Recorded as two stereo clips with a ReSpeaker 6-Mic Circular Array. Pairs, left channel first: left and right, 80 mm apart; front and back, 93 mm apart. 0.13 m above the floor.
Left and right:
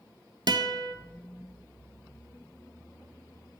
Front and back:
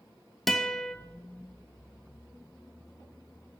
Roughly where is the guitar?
Right.